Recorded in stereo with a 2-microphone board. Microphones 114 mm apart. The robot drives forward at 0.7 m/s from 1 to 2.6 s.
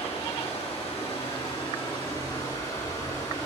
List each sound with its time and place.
0.0 s running water: 55° left (ahead or behind), 1.6 m; by 3.5 s 30° left (ahead or behind), 2.5 m